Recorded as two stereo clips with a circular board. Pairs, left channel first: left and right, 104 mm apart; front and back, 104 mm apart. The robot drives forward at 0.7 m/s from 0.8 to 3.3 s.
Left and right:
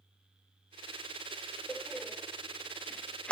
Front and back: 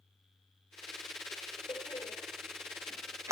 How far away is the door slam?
About 1.0 m.